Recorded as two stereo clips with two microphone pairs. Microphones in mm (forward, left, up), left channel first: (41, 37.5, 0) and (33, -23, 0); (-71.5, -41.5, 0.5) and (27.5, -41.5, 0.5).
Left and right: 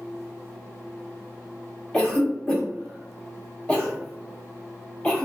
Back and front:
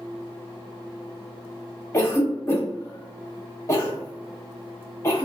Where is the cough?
140° left, 0.8 m.